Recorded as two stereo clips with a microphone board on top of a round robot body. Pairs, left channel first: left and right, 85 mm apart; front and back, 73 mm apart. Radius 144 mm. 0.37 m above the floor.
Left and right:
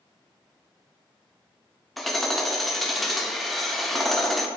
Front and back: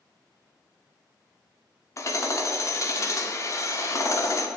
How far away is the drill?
I don't hear a drill.